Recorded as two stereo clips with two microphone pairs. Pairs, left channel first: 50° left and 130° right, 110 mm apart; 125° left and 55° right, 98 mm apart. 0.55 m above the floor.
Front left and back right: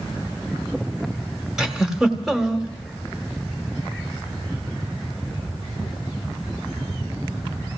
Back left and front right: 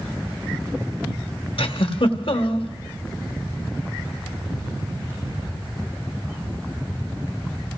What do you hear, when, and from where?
1.6 s a giggle: 145° left, 1.2 m